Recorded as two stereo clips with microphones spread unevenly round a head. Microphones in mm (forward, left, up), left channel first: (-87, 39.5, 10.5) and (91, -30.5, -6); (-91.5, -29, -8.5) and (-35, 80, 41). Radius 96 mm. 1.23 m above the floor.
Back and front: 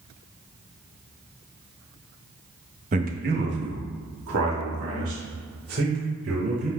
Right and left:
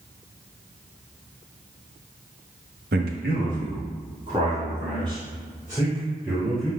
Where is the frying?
I don't hear frying.